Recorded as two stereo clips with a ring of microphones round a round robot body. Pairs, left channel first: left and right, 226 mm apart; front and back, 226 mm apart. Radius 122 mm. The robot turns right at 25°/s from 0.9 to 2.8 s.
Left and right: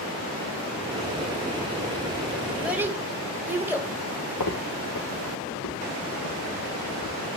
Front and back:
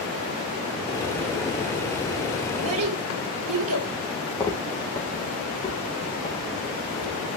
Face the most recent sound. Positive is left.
turn(degrees=65)